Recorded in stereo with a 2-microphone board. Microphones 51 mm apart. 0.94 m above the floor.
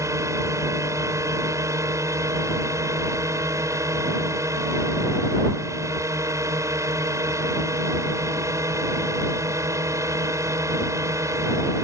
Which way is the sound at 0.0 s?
70° right (ahead or behind).